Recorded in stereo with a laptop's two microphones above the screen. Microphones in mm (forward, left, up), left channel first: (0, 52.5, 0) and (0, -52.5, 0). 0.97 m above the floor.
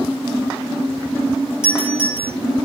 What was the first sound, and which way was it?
A doorbell, 5° right (ahead or behind).